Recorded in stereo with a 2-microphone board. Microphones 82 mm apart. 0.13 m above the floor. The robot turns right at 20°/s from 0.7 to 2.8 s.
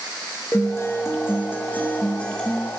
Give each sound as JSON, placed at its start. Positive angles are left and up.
{"t": 0.5, "sound": "a guitar", "azimuth_deg": 130, "distance_m": 2.0}